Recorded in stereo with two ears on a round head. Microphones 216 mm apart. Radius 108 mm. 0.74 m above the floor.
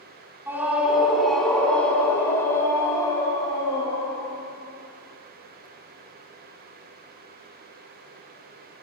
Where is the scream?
10° right (ahead or behind), 2 m; by 4.3 s 20° left (ahead or behind), 4.5 m.